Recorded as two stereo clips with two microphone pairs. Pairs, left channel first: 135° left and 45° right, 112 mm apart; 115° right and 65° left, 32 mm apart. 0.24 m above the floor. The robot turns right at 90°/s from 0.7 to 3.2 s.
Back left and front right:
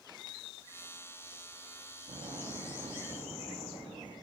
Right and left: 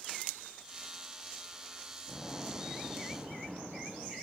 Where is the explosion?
45° right, 2.5 m; by 4.1 s 55° left, 2.5 m.